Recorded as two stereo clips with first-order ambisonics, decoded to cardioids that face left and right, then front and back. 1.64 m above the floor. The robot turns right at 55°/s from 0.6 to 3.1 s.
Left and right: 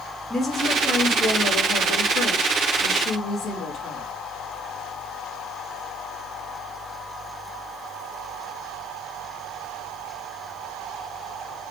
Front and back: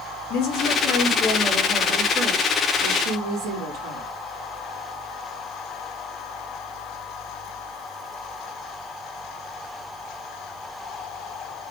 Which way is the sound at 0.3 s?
15° left.